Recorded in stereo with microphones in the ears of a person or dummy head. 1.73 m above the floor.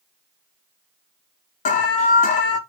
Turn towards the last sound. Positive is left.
turn(degrees=40)  # may be behind; listen again after turning